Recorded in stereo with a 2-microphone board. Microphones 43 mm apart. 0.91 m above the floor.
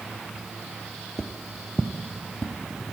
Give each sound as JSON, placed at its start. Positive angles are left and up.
{"t": 1.2, "sound": "footsteps", "side_deg": 10, "distance_m": 0.9}